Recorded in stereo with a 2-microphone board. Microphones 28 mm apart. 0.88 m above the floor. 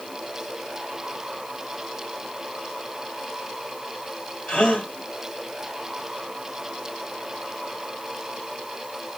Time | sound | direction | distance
4.5 | a gasp | 50° left (ahead or behind) | 1.3 m